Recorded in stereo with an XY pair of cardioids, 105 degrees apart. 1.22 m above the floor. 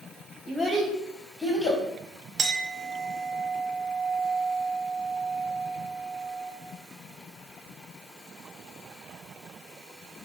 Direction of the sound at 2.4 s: 45° right.